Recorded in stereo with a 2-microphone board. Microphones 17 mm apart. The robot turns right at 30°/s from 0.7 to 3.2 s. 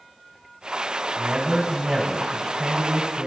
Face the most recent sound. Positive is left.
turn(degrees=-85)